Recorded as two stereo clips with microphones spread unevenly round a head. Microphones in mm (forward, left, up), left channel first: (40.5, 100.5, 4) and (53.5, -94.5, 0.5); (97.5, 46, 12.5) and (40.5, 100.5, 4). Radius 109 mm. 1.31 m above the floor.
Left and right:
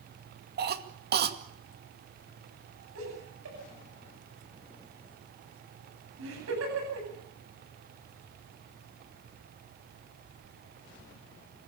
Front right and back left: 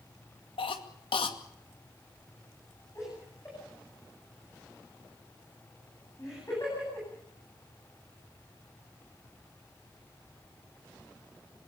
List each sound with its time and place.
0.6 s a cough: 50° right, 2 m
3.0 s laughter: 120° right, 9.5 m